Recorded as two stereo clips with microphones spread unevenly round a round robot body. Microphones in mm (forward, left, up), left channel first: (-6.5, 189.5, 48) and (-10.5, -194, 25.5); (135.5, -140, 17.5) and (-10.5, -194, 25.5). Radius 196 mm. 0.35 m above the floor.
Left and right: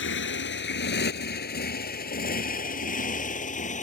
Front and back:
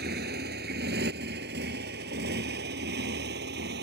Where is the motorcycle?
150° left; by 3.9 s 160° left.